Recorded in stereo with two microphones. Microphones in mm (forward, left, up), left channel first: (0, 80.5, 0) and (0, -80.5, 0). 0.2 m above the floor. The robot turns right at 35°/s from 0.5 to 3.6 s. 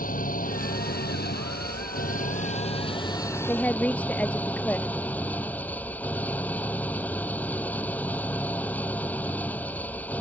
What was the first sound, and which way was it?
An engine running, 60° left.